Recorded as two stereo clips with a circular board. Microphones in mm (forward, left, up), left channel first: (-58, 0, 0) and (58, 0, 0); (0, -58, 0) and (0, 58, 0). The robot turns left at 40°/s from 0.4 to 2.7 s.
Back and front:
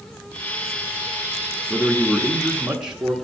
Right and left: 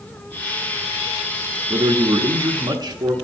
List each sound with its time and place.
1.7 s a man speaking: 115° left, 0.9 m; by 3.1 s 75° left, 0.9 m